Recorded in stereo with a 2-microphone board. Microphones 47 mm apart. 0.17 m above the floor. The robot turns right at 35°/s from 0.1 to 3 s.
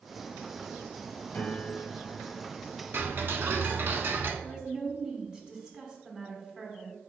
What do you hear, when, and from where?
1.3 s a piano: 115° left, 0.8 m; by 2.4 s 150° left, 0.8 m
2.9 s ticking: 50° right (ahead or behind), 0.6 m; by 4.3 s 55° right (ahead or behind), 0.6 m
4.4 s a woman speaking: 20° right (ahead or behind), 1.1 m